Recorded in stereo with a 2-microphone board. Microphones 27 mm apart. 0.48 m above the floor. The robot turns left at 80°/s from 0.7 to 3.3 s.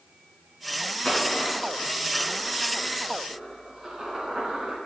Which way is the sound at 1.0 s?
25° left (ahead or behind).